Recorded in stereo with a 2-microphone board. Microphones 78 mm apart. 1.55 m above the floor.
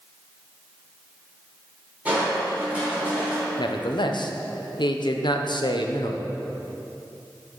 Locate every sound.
2.0 s crushing: 15° right (ahead or behind), 3 m
3.6 s a man speaking: 70° left (ahead or behind), 0.8 m